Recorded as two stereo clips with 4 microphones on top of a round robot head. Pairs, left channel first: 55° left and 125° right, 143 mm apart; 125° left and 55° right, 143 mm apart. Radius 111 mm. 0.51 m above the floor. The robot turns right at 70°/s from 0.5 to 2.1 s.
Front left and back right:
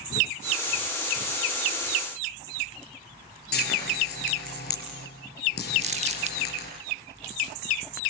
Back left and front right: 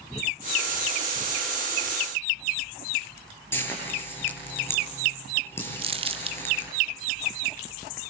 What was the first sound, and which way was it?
Frying, 50° left.